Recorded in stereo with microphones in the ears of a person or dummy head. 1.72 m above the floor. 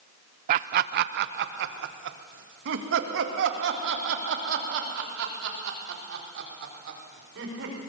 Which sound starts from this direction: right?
Laughter, at 0.5 s.